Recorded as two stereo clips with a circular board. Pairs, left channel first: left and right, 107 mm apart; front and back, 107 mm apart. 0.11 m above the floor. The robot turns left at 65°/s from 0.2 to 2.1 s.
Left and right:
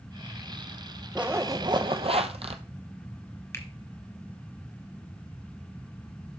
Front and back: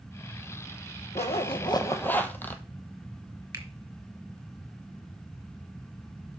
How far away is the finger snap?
About 1.4 m.